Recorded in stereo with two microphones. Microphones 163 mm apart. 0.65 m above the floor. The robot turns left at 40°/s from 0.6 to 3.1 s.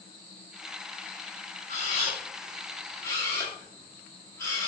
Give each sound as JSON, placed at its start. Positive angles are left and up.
{"t": 1.7, "sound": "a camera shutter", "side_deg": 40, "distance_m": 1.5}